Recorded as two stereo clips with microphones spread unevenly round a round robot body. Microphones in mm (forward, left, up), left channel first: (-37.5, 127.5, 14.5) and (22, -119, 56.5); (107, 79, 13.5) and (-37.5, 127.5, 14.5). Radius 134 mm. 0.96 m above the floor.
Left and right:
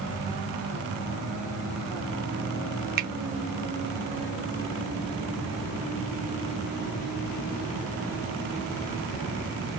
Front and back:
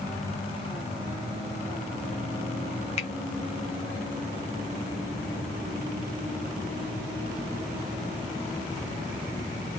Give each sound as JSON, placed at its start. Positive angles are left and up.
{"t": 3.0, "sound": "a finger snap", "azimuth_deg": -30, "distance_m": 0.5}